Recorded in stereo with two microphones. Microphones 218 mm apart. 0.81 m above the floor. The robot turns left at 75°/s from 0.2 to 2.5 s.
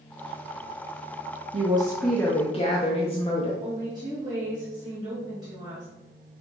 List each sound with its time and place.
1.5 s a woman speaking: 140° right, 0.6 m; by 3.5 s 145° left, 0.6 m
3.6 s a woman speaking: 20° right (ahead or behind), 1.4 m